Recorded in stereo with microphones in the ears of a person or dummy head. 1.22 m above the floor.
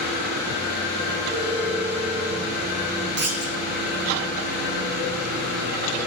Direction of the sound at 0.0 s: 60° right (ahead or behind).